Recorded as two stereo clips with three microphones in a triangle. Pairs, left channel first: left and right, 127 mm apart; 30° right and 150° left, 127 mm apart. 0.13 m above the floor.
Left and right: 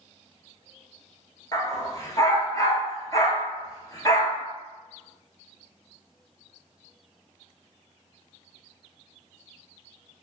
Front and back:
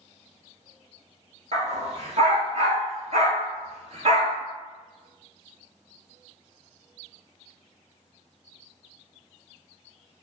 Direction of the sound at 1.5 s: 145° left.